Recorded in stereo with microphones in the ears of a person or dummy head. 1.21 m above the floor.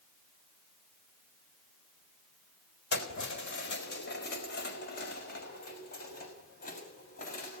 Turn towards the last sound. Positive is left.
turn(degrees=45)  # may be behind; listen again after turning